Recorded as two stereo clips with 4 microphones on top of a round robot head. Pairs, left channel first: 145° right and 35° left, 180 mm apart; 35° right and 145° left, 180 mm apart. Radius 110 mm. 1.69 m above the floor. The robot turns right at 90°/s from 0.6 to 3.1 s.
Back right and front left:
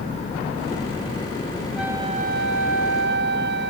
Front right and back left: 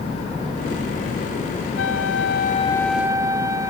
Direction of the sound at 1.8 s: 50° right.